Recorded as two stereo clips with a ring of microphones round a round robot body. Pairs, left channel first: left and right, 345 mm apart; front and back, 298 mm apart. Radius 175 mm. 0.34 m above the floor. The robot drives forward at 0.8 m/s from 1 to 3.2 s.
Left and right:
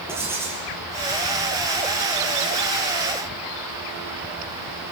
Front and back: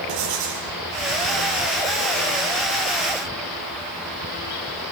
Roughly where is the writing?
Behind.